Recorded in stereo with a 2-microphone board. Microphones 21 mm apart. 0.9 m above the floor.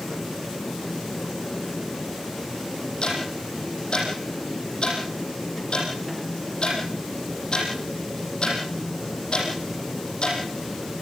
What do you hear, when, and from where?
3.0 s ticking: 45° left (ahead or behind), 8.5 m